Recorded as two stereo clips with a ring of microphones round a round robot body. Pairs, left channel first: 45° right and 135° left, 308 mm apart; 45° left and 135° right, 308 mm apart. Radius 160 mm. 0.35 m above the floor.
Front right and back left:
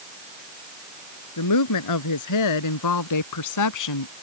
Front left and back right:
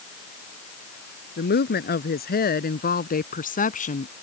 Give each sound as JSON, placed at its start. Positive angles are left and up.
{"t": 1.4, "sound": "a woman speaking", "azimuth_deg": -15}